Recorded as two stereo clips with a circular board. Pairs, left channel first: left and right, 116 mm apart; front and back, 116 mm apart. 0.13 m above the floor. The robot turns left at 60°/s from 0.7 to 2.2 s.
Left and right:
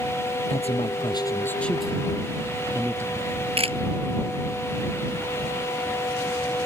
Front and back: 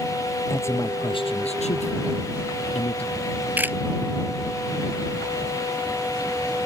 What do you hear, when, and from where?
0.5 s a man speaking: 65° left; by 3.1 s 25° right
3.2 s a camera shutter: 105° right